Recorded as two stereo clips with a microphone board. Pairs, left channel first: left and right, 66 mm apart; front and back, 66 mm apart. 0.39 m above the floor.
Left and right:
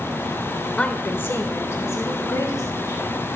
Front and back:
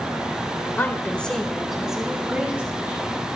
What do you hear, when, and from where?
0.8 s a woman speaking: 30° left, 1.1 m; by 3.1 s 115° left, 2.5 m